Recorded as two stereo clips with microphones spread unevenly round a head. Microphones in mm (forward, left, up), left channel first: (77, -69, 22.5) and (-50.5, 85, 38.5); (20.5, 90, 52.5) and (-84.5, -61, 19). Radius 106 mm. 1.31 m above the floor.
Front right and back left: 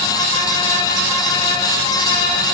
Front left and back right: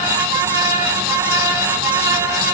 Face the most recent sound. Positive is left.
No sound to turn to.